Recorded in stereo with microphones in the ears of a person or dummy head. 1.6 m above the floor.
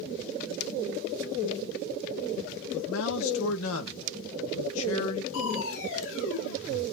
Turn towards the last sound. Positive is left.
turn(degrees=75)  # may be behind; listen again after turning